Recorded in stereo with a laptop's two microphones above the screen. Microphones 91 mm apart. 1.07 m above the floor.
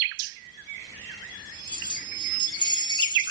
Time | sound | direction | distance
1.7 | keys jangling | 65° left (ahead or behind) | 7 m